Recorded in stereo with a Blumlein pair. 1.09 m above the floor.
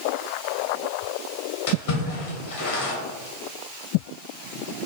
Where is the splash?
50° left, 0.9 m.